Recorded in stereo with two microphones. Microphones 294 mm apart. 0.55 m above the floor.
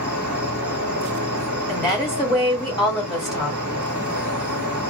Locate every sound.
0.0 s an insect: 75° right (ahead or behind), 1.0 m
1.7 s a woman speaking: 15° left (ahead or behind), 1.6 m